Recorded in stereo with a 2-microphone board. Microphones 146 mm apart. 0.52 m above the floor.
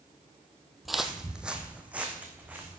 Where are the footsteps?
Centre (ahead or behind), 1.0 m; by 2.8 s 10° right (ahead or behind), 3 m.